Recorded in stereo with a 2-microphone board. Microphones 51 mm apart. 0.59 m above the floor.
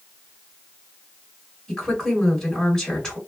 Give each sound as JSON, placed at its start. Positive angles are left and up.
{"t": 1.7, "sound": "a woman speaking", "side_deg": 15, "distance_m": 1.5}